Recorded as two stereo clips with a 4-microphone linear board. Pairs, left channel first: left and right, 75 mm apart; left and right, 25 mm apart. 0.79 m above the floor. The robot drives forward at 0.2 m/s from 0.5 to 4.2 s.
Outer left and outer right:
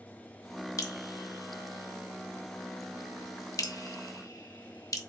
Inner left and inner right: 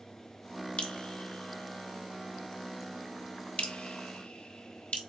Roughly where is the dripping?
Left.